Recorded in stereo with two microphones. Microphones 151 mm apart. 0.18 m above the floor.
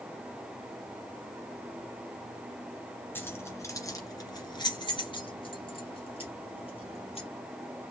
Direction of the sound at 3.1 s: 15° left (ahead or behind).